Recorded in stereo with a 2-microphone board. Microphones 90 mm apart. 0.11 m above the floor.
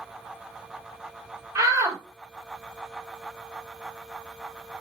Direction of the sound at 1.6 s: 40° right (ahead or behind).